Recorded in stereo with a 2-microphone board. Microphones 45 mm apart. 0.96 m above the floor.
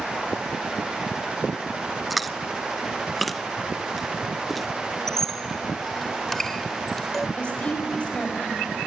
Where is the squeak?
10° left (ahead or behind), 0.8 m.